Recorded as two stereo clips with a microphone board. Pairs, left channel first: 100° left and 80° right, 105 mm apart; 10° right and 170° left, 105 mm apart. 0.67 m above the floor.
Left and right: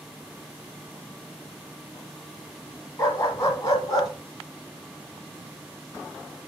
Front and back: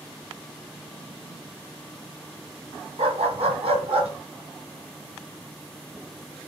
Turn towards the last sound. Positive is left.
turn(degrees=150)